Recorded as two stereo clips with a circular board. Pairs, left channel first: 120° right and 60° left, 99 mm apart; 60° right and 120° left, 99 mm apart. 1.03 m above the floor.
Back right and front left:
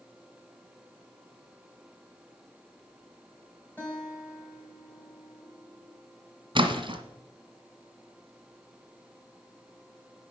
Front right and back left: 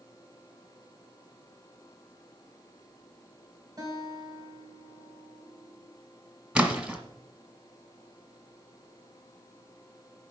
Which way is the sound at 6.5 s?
50° left.